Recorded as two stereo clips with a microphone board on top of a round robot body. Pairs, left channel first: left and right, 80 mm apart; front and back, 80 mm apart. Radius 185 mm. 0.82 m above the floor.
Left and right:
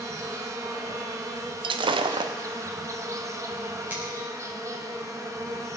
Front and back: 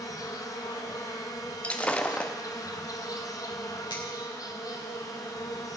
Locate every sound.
0.0 s an insect: 40° right, 1.5 m
1.6 s breaking glass: 75° right, 0.6 m
3.9 s a finger snap: 20° right, 6 m